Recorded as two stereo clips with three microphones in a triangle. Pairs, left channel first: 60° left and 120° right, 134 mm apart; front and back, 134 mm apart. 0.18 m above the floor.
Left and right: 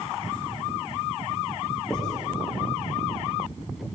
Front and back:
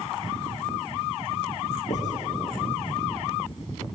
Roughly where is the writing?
Ahead right.